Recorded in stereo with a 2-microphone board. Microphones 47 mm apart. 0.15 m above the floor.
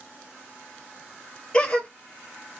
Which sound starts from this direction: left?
A gasp, at 1.5 s.